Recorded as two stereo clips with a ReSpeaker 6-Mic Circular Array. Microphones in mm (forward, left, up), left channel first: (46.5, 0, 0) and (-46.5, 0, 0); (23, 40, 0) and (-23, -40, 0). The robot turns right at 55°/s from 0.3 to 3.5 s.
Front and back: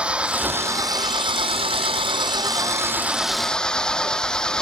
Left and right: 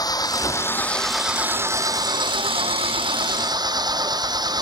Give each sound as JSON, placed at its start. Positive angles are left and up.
{"t": 0.0, "sound": "an engine running", "azimuth_deg": 105}